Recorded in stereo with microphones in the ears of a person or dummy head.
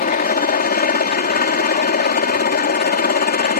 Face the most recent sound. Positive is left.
turn(degrees=45)  # may be behind; listen again after turning